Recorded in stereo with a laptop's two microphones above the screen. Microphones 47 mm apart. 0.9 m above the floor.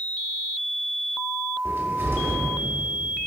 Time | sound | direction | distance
1.6 | a cupboard door | 50° right (ahead or behind) | 1.3 m